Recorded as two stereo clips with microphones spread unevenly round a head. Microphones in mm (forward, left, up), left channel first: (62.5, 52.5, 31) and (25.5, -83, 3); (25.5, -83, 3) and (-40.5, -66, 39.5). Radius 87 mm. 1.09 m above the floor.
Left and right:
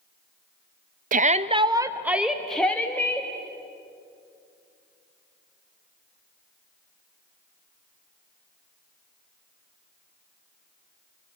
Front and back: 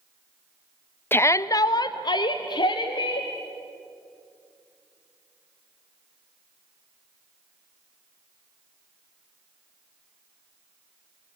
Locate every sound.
1.1 s a shout: 75° right, 0.7 m; by 3.3 s straight ahead, 1.5 m